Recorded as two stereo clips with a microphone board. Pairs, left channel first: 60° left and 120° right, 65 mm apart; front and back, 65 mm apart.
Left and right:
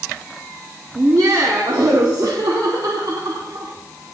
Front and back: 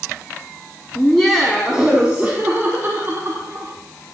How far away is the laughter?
About 1.8 m.